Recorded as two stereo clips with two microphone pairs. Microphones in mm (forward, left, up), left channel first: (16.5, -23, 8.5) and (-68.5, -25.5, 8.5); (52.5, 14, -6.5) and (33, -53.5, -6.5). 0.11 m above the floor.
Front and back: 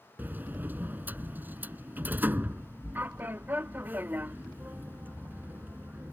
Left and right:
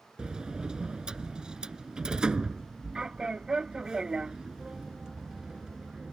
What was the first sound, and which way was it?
A sliding door, 165° right.